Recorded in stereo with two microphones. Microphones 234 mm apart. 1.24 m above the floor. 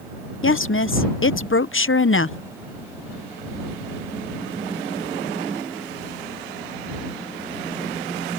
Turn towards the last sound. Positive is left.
turn(degrees=60)  # may be behind; listen again after turning